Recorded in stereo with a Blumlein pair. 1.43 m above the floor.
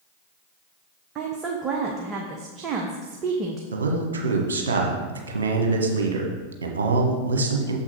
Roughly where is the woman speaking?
Ahead right.